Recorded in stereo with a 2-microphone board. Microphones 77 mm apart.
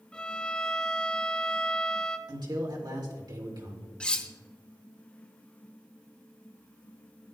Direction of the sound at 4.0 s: 15° left (ahead or behind).